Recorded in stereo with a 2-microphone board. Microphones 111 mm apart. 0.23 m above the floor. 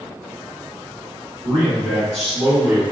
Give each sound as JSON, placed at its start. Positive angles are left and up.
{"t": 1.4, "sound": "a man speaking", "side_deg": 10, "distance_m": 1.8}